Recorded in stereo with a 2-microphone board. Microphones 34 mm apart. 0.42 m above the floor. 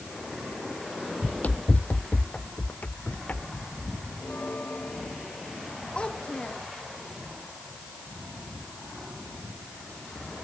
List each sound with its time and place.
1.2 s running footsteps: 50° left (ahead or behind); by 4.1 s 55° left (ahead or behind)
4.2 s a bell: 45° left (ahead or behind)
6.0 s a child speaking: 35° left (ahead or behind)